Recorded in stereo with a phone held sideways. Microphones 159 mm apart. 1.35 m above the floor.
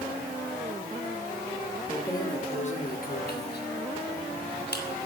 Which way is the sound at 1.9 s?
10° left (ahead or behind).